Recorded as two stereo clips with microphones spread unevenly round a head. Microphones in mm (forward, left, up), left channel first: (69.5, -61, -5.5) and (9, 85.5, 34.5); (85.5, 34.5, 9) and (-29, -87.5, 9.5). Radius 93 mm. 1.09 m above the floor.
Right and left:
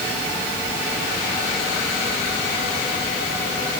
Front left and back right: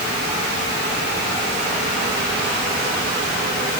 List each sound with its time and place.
Only background noise.